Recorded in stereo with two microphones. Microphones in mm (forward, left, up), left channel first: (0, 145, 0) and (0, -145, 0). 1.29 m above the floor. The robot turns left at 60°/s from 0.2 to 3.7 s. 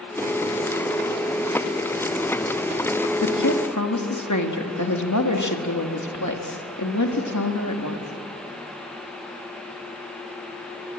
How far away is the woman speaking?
About 2 m.